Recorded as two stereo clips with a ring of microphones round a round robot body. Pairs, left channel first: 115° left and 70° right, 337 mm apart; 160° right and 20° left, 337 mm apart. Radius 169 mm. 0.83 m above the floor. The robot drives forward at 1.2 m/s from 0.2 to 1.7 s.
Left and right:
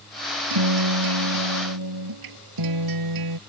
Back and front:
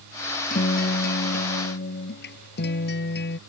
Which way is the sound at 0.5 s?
90° right.